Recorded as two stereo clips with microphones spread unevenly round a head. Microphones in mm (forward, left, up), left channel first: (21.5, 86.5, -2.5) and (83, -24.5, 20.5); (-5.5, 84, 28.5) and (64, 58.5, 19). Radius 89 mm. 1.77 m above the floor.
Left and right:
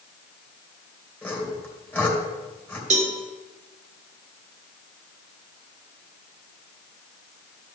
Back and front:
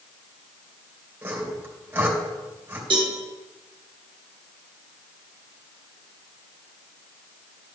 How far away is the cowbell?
About 1.5 m.